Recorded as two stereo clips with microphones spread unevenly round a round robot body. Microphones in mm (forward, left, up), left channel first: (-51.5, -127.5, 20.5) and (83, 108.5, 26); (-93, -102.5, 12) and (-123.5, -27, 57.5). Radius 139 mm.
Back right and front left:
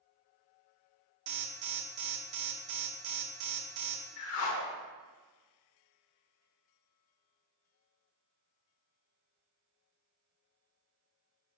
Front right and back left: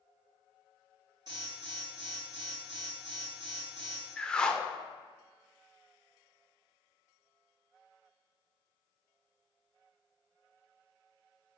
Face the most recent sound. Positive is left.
turn(degrees=-155)